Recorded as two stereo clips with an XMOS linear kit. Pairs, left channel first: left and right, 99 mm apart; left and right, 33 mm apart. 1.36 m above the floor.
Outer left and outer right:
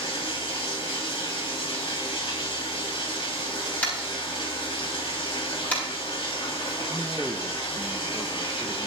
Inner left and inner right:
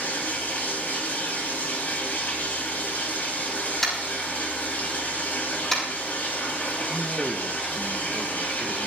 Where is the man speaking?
5° right (ahead or behind), 1.0 m.